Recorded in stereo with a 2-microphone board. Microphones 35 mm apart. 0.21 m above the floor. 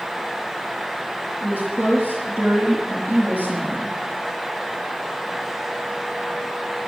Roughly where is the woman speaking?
Right.